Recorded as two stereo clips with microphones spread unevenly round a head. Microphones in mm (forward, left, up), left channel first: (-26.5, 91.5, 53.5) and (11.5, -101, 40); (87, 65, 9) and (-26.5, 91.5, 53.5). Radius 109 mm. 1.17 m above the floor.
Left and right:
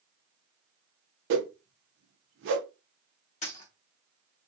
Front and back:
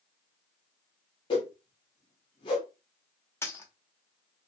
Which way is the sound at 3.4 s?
75° left.